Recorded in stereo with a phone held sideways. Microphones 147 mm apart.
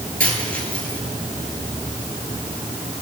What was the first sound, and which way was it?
A dropped coin, 70° right (ahead or behind).